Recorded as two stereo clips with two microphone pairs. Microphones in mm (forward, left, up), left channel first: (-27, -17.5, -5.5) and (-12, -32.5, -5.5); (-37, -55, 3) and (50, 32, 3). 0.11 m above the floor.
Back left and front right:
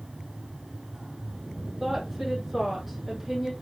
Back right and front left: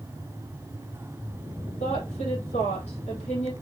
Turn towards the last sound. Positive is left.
turn(degrees=-130)